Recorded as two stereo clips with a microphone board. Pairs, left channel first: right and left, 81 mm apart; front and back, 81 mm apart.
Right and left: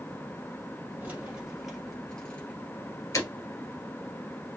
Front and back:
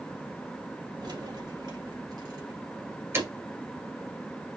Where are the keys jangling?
165° left, 2.5 m; by 3.3 s 125° right, 1.7 m.